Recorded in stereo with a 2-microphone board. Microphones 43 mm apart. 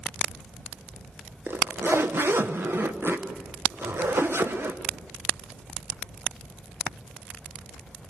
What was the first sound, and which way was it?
A zipper, 60° right (ahead or behind).